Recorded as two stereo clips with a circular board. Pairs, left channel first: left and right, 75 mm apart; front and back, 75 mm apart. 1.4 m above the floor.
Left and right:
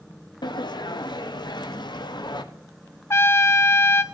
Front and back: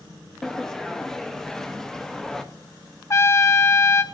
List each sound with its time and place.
0.4 s a sliding door: 85° left, 0.8 m
3.1 s a trumpet: 40° left, 0.7 m